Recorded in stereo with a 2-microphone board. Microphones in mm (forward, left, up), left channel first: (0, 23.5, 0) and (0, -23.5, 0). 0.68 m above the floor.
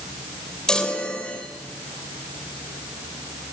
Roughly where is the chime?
Centre.